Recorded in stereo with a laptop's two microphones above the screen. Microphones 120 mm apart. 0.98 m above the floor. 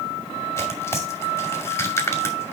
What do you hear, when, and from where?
0.6 s tearing paper: 25° left (ahead or behind), 2.5 m